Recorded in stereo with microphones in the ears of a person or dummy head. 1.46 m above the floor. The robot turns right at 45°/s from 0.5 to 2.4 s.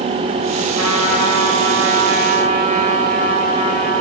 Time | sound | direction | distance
0.8 | a trumpet | 120° right | 6 m